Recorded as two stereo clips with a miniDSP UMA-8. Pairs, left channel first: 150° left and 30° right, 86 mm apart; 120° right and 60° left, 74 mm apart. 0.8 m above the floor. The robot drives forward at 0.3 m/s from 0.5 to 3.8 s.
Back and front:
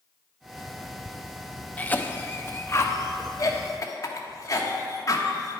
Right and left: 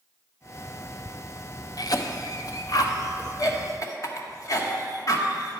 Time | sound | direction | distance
1.8 | a cough | 140° right | 0.6 m